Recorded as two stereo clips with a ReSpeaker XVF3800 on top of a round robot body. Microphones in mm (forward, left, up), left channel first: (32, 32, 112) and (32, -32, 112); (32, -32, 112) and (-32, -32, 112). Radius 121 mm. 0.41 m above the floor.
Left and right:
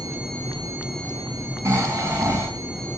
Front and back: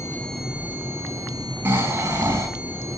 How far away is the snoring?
About 5 m.